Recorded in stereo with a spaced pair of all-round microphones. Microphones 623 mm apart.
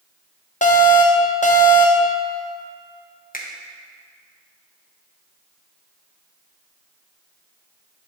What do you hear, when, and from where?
0.6 s an alarm: 15° left (ahead or behind), 0.7 m
3.3 s a finger snap: 15° left (ahead or behind), 0.8 m